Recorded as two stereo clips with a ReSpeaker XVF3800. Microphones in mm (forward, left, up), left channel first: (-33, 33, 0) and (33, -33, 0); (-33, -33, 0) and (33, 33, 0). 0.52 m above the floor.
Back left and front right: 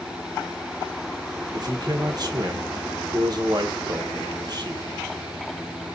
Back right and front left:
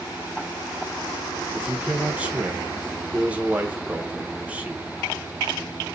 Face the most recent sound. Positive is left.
turn(degrees=-25)